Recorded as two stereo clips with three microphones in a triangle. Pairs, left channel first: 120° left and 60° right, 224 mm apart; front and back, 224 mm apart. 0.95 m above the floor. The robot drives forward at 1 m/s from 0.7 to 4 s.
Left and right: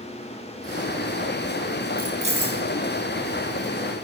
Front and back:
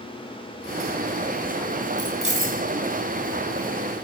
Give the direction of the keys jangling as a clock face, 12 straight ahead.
4 o'clock.